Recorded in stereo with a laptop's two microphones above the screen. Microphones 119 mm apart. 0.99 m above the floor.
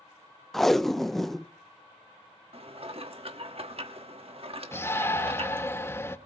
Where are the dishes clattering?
55° right (ahead or behind), 1.2 m.